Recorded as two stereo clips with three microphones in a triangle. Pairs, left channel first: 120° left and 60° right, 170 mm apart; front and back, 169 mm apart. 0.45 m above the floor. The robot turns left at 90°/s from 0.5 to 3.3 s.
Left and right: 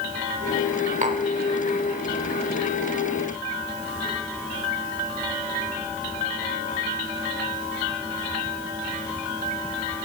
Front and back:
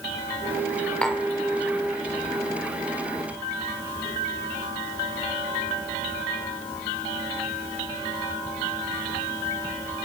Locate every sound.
1.0 s tapping: 80° right, 1.0 m; by 1.2 s 100° right, 1.0 m